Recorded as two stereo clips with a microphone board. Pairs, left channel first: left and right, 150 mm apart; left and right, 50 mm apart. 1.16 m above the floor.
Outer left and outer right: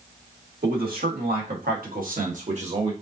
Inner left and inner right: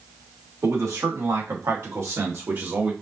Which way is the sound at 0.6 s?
80° right.